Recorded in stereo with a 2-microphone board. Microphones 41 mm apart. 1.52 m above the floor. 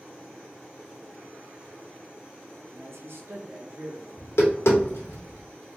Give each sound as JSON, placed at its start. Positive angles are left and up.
{"t": 2.7, "sound": "a man speaking", "side_deg": -65, "distance_m": 0.8}
{"t": 4.2, "sound": "tapping", "side_deg": 85, "distance_m": 1.6}